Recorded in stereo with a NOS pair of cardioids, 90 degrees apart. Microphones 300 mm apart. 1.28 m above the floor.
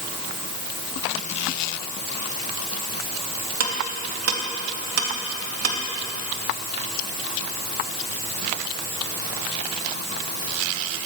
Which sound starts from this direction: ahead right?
Ticking, at 3.6 s.